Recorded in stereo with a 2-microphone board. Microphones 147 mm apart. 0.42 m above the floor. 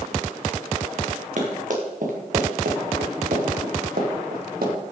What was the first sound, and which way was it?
Running footsteps, 60° right (ahead or behind).